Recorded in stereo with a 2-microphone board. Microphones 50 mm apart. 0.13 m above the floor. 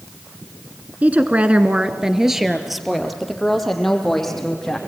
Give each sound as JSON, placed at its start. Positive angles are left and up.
{"t": 1.0, "sound": "a woman speaking", "side_deg": -30, "distance_m": 1.4}